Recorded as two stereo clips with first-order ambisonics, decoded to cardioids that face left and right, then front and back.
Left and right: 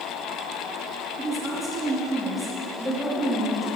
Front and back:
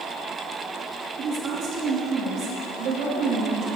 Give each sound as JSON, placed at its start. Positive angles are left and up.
{"t": 1.2, "sound": "a woman speaking", "azimuth_deg": -175, "distance_m": 1.3}